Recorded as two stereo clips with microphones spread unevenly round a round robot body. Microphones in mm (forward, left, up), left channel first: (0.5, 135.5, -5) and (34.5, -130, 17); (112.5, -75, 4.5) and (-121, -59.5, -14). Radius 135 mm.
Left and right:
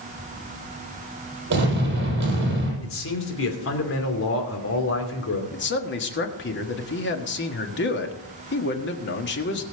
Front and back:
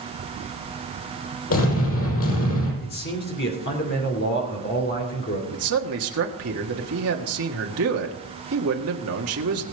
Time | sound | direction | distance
1.5 | an explosion | 30° right | 6 m
2.8 | a man speaking | 55° left | 2.5 m
5.5 | a man speaking | 145° left | 1.5 m